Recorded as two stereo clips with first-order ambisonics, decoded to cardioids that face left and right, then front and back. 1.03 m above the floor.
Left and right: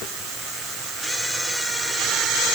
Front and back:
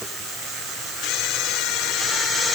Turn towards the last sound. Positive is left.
No sound to turn to.